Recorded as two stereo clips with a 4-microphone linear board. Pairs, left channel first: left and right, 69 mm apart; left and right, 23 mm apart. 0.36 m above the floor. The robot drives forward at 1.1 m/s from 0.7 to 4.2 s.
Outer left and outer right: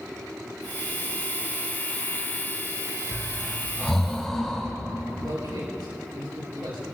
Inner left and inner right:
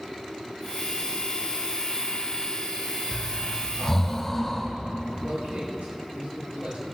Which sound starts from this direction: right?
A man speaking, at 5.2 s.